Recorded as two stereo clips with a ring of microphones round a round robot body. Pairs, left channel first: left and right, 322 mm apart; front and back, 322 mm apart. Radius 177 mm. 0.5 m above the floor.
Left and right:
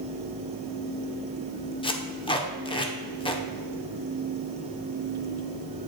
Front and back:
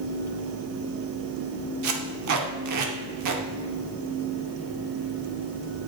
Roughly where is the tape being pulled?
Behind.